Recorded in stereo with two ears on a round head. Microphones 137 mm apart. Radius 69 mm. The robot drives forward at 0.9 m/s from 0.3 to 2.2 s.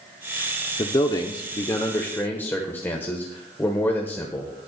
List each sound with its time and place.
0.8 s a man speaking: 25° left (ahead or behind), 0.7 m; by 4.5 s 15° left (ahead or behind), 1.4 m